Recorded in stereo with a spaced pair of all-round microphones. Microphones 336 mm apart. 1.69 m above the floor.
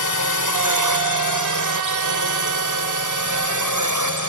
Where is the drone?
65° right (ahead or behind); by 4.3 s 60° right (ahead or behind).